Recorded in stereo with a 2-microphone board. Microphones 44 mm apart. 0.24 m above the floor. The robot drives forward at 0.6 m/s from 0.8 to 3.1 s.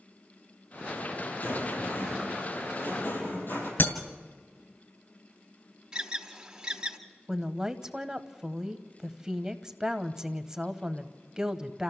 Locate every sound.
1.4 s a rattle: 60° left (ahead or behind), 8.5 m; by 3.7 s 55° left (ahead or behind), 9 m
3.8 s breaking glass: 60° left (ahead or behind), 2 m
5.9 s an alarm: 20° right (ahead or behind), 1.5 m
7.3 s a woman speaking: 15° right (ahead or behind), 0.9 m